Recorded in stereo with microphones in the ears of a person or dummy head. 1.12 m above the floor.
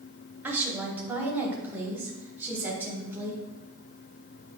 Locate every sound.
0.4 s a woman speaking: 15° right (ahead or behind), 2.5 m